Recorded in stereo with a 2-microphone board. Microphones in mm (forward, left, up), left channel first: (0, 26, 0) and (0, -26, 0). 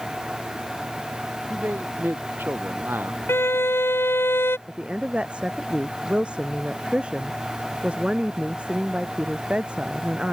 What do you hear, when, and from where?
1.5 s a man speaking: 40° right (ahead or behind)
3.3 s a violin: 45° left (ahead or behind)
4.7 s a woman speaking: 20° right (ahead or behind)